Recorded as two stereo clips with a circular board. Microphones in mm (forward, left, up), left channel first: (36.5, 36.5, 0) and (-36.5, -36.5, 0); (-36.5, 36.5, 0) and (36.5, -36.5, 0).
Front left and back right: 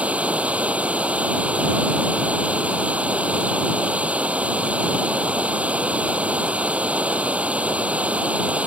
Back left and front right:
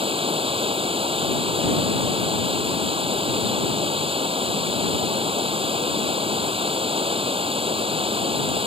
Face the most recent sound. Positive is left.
turn(degrees=-60)